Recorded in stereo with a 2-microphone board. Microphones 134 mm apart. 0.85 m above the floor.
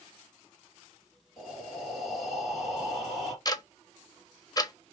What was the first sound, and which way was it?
Breathing, centre (ahead or behind).